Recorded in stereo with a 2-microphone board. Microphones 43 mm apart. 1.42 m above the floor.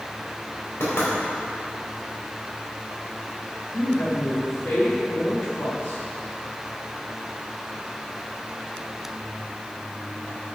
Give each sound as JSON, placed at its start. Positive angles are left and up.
{"t": 0.8, "sound": "knocking", "side_deg": 75, "distance_m": 3.5}
{"t": 3.7, "sound": "a woman speaking", "side_deg": 90, "distance_m": 3.0}